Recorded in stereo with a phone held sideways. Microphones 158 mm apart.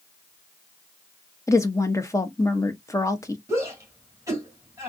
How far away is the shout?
About 2 m.